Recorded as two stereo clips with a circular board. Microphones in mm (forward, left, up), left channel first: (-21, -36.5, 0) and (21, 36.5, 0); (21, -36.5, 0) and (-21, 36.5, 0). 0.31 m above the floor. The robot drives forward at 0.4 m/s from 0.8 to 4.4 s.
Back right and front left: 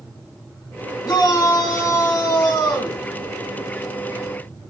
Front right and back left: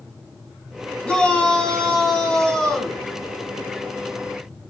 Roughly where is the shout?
Behind right.